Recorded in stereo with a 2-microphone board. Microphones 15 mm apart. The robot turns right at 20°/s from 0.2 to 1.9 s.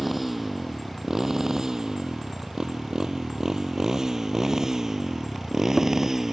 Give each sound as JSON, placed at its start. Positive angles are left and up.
{"t": 0.0, "sound": "a motorcycle", "side_deg": -10}